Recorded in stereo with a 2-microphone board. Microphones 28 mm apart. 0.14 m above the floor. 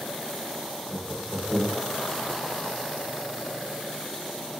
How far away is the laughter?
About 1.8 m.